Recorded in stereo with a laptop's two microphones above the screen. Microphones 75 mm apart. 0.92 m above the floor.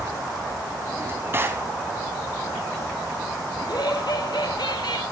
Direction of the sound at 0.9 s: 30° right (ahead or behind).